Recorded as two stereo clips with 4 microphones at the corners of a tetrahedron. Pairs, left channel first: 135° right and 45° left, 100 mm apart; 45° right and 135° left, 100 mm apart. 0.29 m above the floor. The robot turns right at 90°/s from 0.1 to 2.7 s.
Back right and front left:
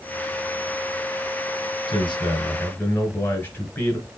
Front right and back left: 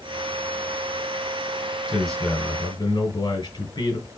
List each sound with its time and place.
1.9 s a man speaking: 145° right, 2.5 m; by 4.1 s 75° right, 2.5 m